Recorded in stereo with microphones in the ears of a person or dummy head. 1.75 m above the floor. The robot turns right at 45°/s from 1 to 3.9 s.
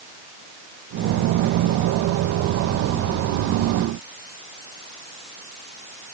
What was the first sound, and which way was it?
Only background noise.